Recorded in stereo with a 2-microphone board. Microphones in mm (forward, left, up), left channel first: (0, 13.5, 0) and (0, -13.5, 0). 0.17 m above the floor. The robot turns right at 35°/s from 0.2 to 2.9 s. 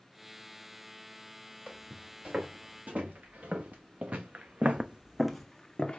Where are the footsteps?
40° right (ahead or behind), 2.5 m; by 6.0 s 30° left (ahead or behind), 0.8 m.